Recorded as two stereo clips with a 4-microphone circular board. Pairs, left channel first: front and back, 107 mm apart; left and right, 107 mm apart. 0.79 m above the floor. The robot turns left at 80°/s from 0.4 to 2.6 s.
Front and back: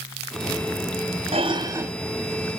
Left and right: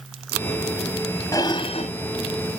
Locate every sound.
1.3 s dishes clattering: 155° left, 0.7 m; by 1.9 s 105° left, 0.7 m